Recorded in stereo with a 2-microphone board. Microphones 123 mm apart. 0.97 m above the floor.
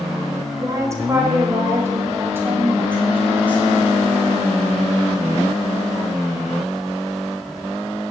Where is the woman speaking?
25° right (ahead or behind), 4 m; by 3.8 s 15° right (ahead or behind), 8 m.